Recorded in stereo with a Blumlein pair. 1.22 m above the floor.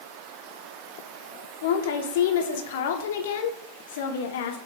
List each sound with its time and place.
1.6 s a woman speaking: 55° left, 0.8 m